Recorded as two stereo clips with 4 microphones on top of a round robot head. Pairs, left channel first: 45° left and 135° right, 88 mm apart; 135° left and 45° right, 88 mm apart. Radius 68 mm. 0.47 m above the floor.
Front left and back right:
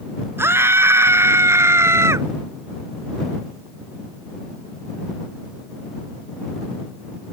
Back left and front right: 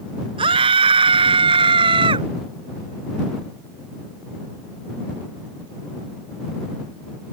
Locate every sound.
0.4 s a scream: 75° right